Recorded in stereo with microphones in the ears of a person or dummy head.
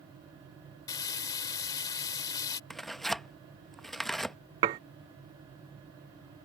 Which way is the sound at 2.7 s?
Centre (ahead or behind).